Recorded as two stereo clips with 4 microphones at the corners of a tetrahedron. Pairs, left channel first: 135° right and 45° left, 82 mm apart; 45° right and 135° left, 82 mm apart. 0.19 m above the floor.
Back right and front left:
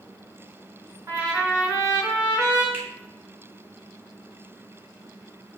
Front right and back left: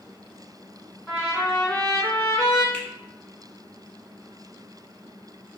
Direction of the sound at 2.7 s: 5° left.